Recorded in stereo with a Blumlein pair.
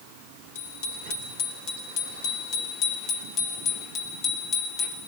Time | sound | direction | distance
0.6 | a bicycle bell | 55° left | 9.5 m